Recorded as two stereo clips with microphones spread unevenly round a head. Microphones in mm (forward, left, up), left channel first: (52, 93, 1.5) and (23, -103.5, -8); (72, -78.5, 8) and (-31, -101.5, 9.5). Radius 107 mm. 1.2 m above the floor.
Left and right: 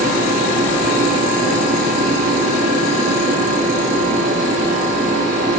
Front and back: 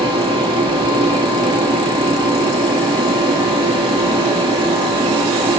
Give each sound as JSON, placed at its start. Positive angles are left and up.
{"t": 0.0, "sound": "a fan", "azimuth_deg": -145, "distance_m": 1.9}